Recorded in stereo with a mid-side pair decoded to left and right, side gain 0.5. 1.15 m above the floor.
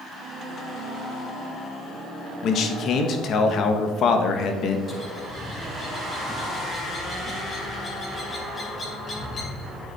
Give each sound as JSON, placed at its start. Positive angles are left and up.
{"t": 2.4, "sound": "a man speaking", "azimuth_deg": 60, "distance_m": 1.5}
{"t": 4.9, "sound": "a bird", "azimuth_deg": 35, "distance_m": 3.5}